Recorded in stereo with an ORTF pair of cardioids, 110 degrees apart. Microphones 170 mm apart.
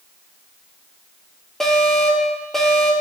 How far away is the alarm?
About 5 m.